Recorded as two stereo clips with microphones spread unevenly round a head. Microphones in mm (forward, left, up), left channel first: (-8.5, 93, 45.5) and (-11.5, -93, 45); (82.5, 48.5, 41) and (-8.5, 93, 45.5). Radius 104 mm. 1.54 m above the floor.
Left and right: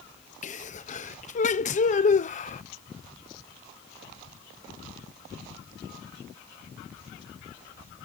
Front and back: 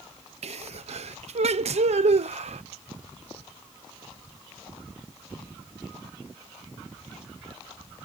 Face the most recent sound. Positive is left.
turn(degrees=140)